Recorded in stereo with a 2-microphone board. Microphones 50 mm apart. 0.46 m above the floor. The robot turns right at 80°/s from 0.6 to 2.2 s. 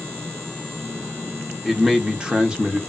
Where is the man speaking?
5° right (ahead or behind), 0.7 m; by 2.8 s 20° right (ahead or behind), 0.7 m.